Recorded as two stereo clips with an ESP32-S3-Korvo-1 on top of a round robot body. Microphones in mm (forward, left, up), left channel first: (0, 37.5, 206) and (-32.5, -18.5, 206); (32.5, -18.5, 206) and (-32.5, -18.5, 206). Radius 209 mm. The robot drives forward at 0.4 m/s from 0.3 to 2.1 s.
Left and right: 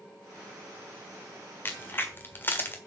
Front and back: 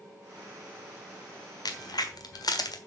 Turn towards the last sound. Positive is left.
turn(degrees=0)